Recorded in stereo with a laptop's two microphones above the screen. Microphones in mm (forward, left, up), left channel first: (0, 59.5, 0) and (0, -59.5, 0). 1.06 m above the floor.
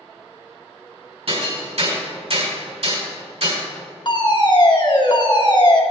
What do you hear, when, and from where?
1.3 s hammering: 60° right (ahead or behind), 4 m
4.0 s a fire alarm: 40° left (ahead or behind), 1.7 m